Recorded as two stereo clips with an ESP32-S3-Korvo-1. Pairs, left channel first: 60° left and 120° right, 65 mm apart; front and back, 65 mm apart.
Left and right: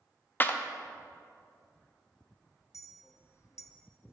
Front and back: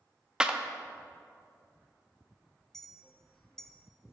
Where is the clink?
80° left, 0.6 m.